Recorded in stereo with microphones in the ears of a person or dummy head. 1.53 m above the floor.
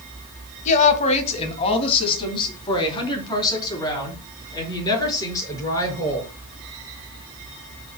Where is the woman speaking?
40° left (ahead or behind), 2.5 m; by 6.3 s 20° left (ahead or behind), 7 m.